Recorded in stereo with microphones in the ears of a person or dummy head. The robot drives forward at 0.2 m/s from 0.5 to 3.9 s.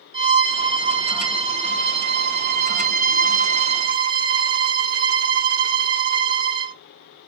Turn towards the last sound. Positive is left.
turn(degrees=-55)  # may be behind; listen again after turning